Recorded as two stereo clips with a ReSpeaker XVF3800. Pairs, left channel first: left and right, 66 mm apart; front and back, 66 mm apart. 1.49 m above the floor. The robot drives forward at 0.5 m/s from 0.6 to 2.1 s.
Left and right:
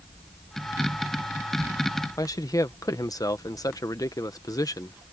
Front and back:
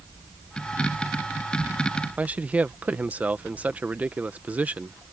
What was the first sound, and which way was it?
A man speaking, 115° left.